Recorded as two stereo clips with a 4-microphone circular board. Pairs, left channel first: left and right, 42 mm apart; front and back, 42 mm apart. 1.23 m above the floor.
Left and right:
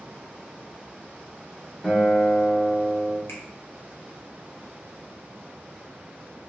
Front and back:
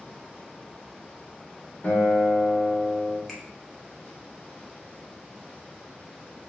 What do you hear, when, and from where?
1.8 s a guitar: 15° left, 1.0 m
3.3 s a finger snap: 80° left, 1.0 m